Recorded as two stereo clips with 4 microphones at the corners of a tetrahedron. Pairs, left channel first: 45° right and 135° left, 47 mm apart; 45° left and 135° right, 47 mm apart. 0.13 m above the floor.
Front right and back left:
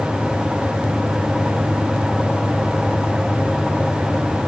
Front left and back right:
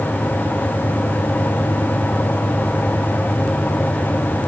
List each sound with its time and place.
Only background noise.